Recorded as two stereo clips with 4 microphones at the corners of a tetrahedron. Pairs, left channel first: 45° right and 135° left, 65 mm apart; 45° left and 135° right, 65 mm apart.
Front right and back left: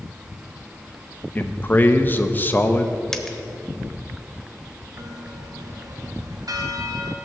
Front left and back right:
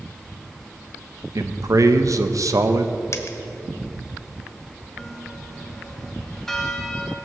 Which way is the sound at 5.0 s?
130° left.